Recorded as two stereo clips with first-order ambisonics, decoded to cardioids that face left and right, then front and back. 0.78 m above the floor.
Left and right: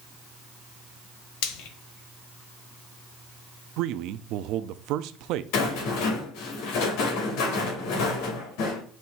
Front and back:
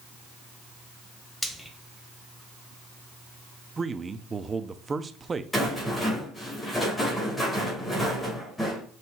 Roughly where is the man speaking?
Right.